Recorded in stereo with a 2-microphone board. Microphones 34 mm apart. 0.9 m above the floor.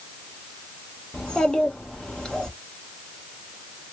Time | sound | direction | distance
1.1 | a child speaking | 30° left (ahead or behind) | 1.1 m